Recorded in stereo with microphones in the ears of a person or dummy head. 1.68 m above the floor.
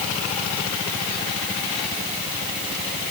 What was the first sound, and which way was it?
Only background noise.